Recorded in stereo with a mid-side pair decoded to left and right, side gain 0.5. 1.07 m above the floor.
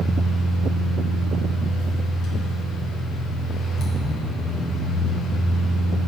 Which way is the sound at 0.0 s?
65° left.